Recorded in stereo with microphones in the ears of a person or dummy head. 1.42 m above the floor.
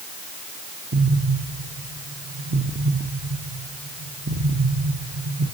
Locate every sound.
0.9 s an explosion: 50° right (ahead or behind), 1.1 m